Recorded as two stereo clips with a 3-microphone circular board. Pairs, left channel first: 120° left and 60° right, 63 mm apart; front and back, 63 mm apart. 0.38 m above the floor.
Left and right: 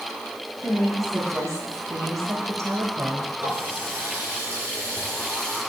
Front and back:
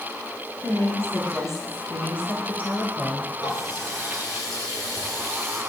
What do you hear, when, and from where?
0.6 s a woman speaking: 30° right, 3.5 m; by 3.3 s 75° right, 1.5 m
3.4 s a running tap: 5° right, 7 m